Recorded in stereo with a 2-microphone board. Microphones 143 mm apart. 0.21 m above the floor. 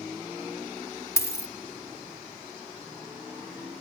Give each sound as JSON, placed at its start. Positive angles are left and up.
{"t": 1.2, "sound": "a dropped coin", "side_deg": 20, "distance_m": 0.9}